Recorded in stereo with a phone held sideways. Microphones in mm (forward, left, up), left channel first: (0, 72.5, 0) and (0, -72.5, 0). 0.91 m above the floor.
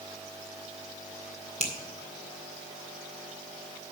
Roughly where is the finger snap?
Right.